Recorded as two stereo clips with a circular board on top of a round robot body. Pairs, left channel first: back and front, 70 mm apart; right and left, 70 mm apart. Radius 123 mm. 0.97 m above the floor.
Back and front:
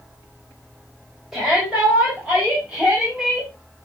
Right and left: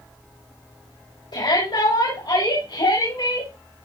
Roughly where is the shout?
Right.